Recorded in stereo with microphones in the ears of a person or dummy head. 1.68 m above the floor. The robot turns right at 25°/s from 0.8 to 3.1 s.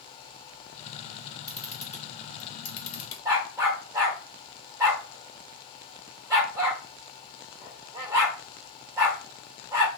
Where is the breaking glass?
No breaking glass in this recording.